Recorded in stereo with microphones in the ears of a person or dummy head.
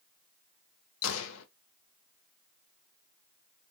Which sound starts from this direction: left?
A gunshot, at 1.0 s.